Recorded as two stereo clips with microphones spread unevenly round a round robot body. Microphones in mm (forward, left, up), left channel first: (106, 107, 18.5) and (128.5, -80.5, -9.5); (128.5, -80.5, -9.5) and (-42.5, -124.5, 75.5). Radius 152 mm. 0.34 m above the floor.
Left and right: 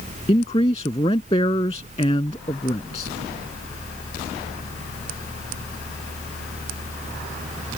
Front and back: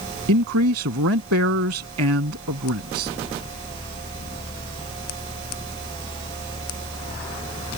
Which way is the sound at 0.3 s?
170° left.